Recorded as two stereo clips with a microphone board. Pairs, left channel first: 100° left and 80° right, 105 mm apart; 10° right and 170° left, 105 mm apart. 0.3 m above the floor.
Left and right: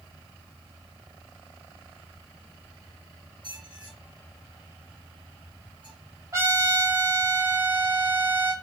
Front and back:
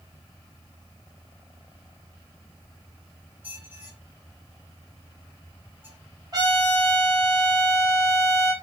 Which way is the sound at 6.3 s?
135° right.